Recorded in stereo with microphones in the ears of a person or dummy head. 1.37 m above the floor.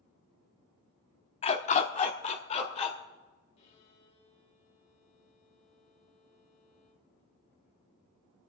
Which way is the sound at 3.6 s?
40° left (ahead or behind).